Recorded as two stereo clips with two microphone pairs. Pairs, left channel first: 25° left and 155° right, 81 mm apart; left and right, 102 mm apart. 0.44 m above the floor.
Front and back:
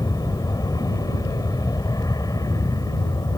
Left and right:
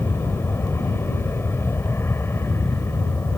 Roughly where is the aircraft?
Ahead left.